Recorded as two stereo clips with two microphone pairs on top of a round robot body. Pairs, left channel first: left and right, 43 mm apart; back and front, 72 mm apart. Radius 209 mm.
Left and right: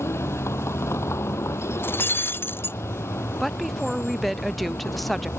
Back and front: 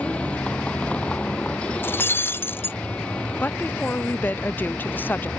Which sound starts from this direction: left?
A vehicle, at 0.0 s.